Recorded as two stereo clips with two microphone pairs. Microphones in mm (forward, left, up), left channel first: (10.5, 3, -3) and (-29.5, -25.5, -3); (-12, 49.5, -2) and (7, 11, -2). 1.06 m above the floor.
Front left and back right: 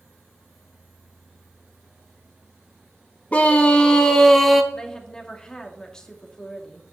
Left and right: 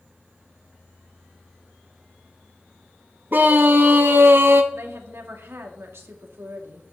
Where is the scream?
25° right, 1.9 m; by 4.6 s 55° right, 1.4 m.